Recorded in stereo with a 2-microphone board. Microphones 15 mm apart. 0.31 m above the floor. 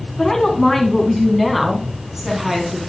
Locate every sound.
0.2 s a woman speaking: 25° left (ahead or behind), 3 m; by 2.8 s 25° right (ahead or behind), 3 m